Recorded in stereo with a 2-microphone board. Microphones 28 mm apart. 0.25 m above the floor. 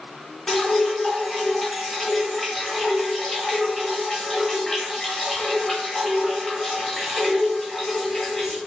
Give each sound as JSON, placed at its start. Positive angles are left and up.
{"t": 0.5, "sound": "dripping", "side_deg": 20, "distance_m": 1.0}